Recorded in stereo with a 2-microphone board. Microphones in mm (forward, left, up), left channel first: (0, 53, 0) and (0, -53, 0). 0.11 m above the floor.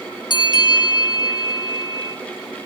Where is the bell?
45° left (ahead or behind), 0.9 m.